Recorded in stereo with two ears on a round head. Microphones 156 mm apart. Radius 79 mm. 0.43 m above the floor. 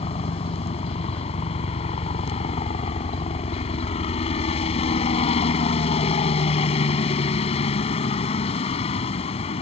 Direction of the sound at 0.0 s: 35° left (ahead or behind).